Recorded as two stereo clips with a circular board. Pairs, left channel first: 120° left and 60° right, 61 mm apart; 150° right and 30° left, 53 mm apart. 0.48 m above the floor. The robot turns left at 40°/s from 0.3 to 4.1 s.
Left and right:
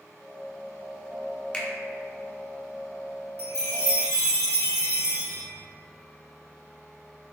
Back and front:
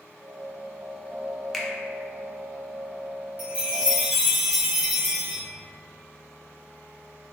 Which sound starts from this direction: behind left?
A finger snap, at 1.5 s.